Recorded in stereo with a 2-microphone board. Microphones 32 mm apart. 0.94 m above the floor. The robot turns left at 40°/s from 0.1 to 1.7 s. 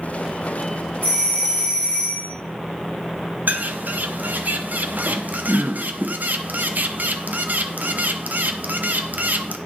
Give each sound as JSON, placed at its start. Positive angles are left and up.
{"t": 1.0, "sound": "a doorbell", "side_deg": -60, "distance_m": 3.5}
{"t": 3.5, "sound": "a bird", "side_deg": -65, "distance_m": 0.6}